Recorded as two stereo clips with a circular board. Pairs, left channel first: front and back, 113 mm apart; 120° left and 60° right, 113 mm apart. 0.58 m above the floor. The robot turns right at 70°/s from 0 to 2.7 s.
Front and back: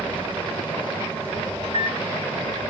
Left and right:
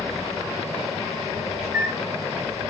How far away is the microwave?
About 1.9 m.